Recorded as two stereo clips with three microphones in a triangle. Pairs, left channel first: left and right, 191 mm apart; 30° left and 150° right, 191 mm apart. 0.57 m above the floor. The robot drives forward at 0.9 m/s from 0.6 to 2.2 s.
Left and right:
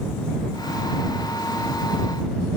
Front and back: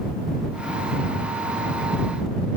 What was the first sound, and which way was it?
Only background noise.